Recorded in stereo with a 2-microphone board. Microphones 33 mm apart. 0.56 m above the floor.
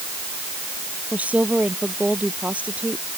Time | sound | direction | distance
1.1 | a woman speaking | 45° right (ahead or behind) | ?